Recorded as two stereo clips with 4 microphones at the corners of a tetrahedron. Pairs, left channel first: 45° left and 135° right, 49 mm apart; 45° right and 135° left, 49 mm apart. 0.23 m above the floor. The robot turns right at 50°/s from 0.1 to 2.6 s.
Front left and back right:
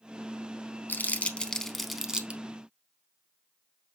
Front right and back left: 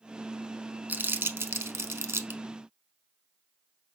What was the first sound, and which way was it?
Crumpling, 85° left.